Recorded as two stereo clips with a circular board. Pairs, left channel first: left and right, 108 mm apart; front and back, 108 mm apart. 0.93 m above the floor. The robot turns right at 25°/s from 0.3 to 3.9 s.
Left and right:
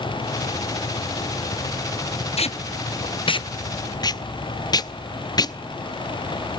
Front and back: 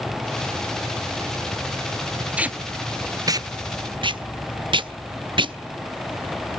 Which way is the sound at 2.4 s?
100° left.